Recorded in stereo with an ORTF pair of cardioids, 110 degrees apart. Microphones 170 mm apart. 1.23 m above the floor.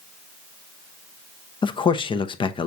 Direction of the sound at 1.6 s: 30° left.